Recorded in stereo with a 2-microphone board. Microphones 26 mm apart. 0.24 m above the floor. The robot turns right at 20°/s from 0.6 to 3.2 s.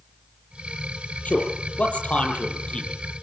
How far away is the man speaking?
About 8.5 m.